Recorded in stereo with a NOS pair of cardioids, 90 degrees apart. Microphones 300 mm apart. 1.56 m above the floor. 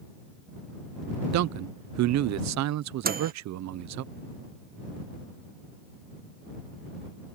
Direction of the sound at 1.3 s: 60° right.